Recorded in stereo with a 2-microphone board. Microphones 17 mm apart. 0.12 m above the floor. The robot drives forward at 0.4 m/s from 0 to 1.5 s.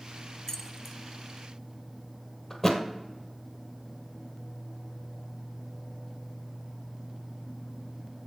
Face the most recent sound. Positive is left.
turn(degrees=15)  # may be behind; listen again after turning